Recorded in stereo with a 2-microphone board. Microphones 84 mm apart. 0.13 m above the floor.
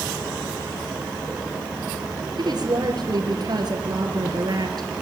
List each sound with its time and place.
2.4 s a woman speaking: 55° right (ahead or behind), 3 m